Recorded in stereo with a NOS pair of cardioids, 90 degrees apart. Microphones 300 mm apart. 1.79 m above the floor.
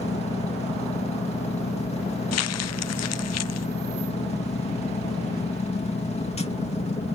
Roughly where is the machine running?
Ahead.